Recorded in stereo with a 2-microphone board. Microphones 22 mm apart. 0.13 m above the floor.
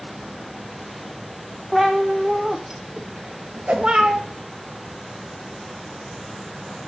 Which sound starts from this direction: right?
A whoosh, at 3.7 s.